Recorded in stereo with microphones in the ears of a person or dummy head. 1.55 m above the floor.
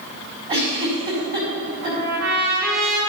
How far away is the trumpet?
About 3 m.